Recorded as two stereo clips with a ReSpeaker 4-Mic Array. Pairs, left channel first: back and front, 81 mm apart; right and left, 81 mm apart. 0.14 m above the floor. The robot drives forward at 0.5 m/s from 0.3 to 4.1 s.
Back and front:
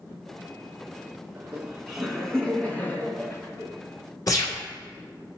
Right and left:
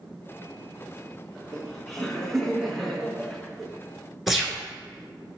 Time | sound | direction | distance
1.4 | laughter | 15° right | 1.1 m
4.3 | a gunshot | straight behind | 1.3 m